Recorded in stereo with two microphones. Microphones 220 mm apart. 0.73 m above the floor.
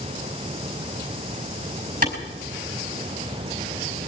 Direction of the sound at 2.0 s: 40° right (ahead or behind).